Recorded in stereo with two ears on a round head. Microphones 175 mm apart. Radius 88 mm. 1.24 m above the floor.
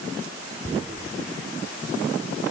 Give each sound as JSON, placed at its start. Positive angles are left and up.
{"t": 0.6, "sound": "tearing paper", "side_deg": -30, "distance_m": 3.0}